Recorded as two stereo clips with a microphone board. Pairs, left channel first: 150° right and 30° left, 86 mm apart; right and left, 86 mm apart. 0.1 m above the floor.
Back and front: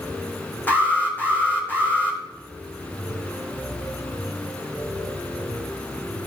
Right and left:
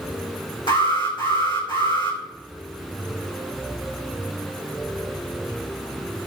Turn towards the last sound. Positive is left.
turn(degrees=-80)